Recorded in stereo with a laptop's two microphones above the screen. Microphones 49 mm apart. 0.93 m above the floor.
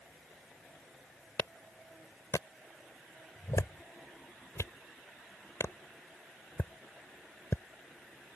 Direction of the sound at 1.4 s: 75° left (ahead or behind).